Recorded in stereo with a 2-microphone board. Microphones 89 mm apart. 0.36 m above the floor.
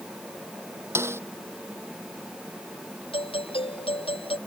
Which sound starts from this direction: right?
A snare drum, at 0.9 s.